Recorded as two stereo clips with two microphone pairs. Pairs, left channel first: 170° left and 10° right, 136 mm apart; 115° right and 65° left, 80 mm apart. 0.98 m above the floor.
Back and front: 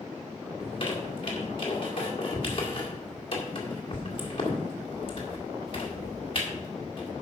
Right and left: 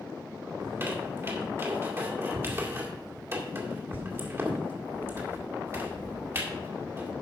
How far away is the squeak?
About 1.9 m.